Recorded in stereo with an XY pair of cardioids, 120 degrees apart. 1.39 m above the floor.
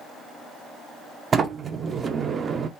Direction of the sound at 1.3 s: 35° right.